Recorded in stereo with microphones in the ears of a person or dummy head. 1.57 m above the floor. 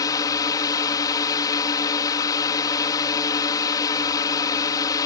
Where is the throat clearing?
No throat clearing in this recording.